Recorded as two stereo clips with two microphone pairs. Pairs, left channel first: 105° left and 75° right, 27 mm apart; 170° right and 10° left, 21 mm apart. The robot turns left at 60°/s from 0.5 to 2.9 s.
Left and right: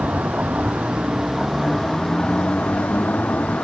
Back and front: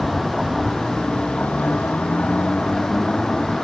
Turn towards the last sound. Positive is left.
turn(degrees=130)